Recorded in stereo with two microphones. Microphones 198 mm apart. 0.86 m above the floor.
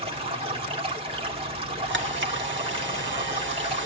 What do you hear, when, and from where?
0.0 s running water: 30° right (ahead or behind), 2 m
1.9 s a camera shutter: 70° right (ahead or behind), 0.8 m